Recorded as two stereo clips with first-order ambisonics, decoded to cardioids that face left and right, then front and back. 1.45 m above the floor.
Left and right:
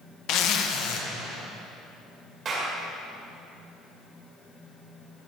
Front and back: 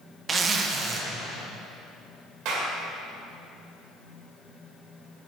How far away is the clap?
About 1.9 m.